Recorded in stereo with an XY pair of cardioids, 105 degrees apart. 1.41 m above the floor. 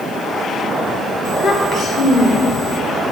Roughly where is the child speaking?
Ahead left.